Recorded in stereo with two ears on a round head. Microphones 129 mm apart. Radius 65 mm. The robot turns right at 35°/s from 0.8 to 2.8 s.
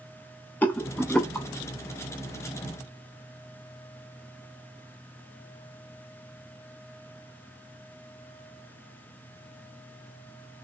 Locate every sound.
0.6 s a rattle: 10° left (ahead or behind), 0.5 m; by 1.5 s 5° left (ahead or behind), 0.5 m